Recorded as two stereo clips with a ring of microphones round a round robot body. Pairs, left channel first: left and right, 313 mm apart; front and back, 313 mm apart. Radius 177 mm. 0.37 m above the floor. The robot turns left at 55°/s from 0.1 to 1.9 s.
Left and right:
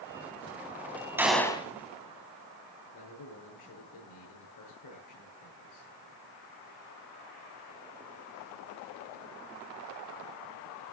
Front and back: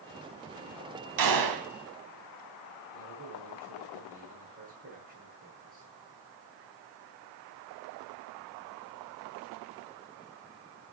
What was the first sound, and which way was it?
A gunshot, 170° right.